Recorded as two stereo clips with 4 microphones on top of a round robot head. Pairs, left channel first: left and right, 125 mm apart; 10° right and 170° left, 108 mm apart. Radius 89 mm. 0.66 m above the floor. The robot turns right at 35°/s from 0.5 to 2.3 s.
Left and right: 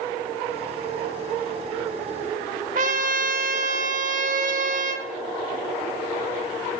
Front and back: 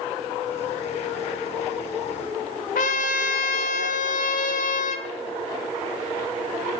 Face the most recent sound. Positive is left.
turn(degrees=-45)